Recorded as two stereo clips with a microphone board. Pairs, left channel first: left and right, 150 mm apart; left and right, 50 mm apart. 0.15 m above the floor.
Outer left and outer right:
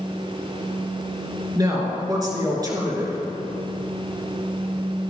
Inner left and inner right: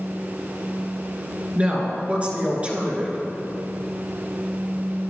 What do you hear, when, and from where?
1.6 s a woman speaking: 25° right (ahead or behind), 2.5 m